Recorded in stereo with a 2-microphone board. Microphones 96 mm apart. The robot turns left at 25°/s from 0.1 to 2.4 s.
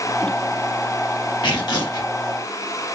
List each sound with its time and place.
1.4 s tearing paper: 55° left (ahead or behind), 1.8 m; by 2.1 s 40° left (ahead or behind), 1.8 m